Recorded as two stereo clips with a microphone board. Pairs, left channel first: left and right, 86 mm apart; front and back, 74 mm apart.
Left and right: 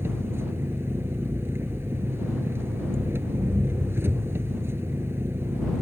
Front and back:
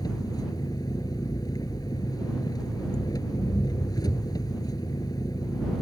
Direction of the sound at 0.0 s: 30° right.